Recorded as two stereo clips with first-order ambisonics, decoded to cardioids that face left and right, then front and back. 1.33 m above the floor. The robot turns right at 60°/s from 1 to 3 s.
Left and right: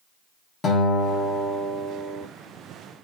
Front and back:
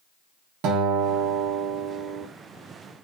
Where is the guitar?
155° left, 0.8 m; by 2.3 s 130° right, 0.8 m.